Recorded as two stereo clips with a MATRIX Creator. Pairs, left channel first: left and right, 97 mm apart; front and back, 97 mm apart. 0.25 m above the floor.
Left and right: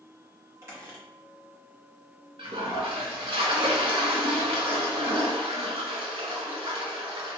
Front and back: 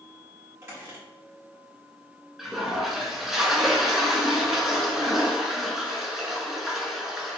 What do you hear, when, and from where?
0.6 s a squeak: 135° right, 1.3 m
2.4 s a toilet flushing: 95° right, 0.6 m